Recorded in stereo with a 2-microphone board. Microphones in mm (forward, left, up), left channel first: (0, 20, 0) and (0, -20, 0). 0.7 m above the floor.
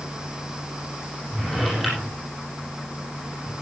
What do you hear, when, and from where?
1.3 s a drawer: centre (ahead or behind), 8.5 m